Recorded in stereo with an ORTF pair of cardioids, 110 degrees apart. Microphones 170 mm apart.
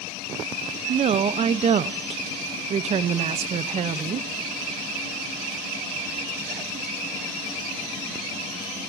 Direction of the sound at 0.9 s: 40° right.